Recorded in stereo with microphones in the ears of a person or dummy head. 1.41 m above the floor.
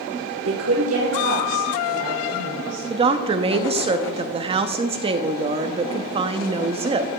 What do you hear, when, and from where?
0.5 s a woman speaking: 85° right, 0.9 m; by 2.9 s 90° right, 3 m
2.9 s a woman speaking: 30° right (ahead or behind), 0.6 m